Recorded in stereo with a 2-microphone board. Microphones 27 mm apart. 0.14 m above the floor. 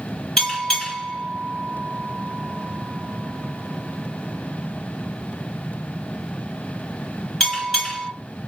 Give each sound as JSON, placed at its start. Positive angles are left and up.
{"t": 0.4, "sound": "a bell", "side_deg": 20, "distance_m": 1.9}